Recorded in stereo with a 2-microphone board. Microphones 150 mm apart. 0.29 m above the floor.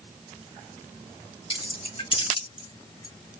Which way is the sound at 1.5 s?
35° left (ahead or behind).